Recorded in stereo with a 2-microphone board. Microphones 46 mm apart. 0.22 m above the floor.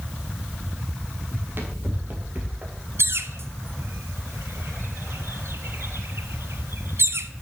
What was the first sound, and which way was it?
Running footsteps, 50° right (ahead or behind).